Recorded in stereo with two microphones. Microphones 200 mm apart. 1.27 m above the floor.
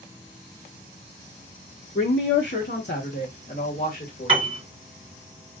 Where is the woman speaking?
60° left (ahead or behind), 0.9 m; by 4.5 s 45° left (ahead or behind), 2 m.